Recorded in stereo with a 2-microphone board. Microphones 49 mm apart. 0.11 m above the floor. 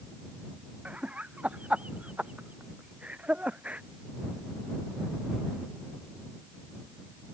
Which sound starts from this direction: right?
Laughter, at 0.8 s.